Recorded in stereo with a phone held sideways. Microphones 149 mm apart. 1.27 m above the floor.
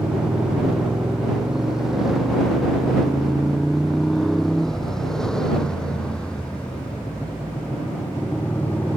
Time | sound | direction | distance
0.0 | a motorcycle | 5° right (ahead or behind) | ?